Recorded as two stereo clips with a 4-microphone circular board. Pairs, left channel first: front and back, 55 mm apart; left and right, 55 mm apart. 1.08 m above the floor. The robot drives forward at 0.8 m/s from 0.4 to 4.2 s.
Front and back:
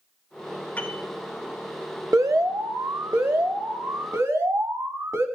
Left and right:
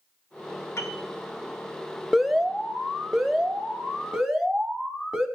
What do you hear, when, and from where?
0.8 s a piano: 60° left, 2.5 m; by 1.1 s 65° left, 2.5 m
2.1 s an alarm: 175° right, 0.8 m; by 5.3 s straight behind, 2.5 m